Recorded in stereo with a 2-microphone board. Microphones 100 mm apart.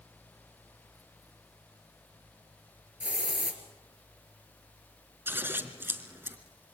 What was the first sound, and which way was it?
A hiss, 15° right (ahead or behind).